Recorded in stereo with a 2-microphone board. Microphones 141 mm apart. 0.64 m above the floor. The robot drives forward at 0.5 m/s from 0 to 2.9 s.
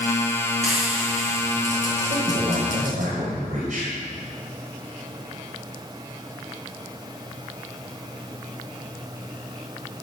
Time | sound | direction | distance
0.6 | frying | 55° left (ahead or behind) | 4.5 m
2.1 | a man speaking | 70° right (ahead or behind) | 2.5 m